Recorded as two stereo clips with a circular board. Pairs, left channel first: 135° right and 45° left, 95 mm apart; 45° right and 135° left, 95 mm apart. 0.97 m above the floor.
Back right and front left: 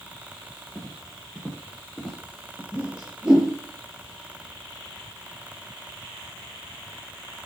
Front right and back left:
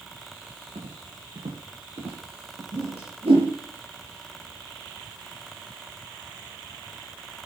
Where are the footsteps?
135° left, 5.5 m; by 2.6 s 145° left, 5.5 m.